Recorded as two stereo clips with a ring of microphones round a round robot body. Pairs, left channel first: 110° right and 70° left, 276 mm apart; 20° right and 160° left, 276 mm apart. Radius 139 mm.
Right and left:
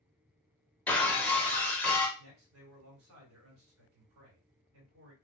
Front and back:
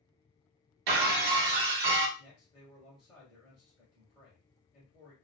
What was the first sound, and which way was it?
Breaking glass, 160° left.